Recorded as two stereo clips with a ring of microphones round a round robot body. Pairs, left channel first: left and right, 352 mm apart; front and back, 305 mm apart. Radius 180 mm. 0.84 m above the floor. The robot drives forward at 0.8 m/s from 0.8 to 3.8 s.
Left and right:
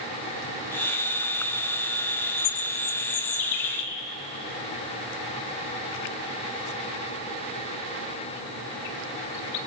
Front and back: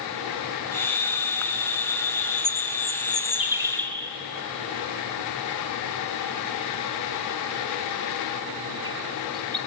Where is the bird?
65° left, 1.9 m; by 9.6 s 105° left, 1.8 m.